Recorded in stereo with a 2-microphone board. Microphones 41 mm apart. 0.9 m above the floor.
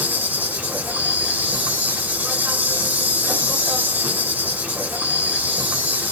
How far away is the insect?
About 1.2 m.